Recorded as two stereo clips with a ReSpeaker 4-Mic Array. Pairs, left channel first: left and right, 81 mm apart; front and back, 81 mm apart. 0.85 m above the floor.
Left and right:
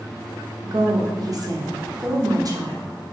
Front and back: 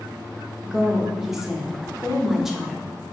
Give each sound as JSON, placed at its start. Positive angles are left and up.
{"t": 0.6, "sound": "a woman speaking", "azimuth_deg": -95, "distance_m": 0.5}